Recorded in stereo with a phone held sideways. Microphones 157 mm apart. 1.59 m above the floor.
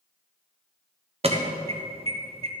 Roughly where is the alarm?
Right.